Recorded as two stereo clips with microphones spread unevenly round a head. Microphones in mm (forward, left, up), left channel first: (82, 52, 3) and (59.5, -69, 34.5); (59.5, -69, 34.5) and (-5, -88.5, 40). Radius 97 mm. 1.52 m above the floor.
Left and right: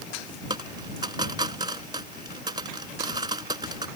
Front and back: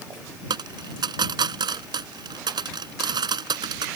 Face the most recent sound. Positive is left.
turn(degrees=-165)